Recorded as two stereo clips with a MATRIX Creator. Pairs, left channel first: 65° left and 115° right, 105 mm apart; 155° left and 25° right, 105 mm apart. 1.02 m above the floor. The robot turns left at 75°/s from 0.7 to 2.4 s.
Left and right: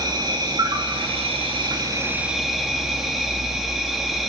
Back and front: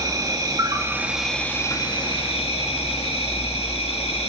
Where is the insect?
75° right, 2.0 m; by 4.3 s 160° left, 2.0 m.